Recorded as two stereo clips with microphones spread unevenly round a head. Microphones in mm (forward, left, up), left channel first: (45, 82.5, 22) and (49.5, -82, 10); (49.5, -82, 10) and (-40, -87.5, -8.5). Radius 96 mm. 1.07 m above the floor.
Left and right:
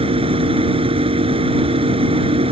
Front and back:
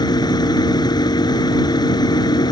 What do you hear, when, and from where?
0.0 s a machine running: 30° right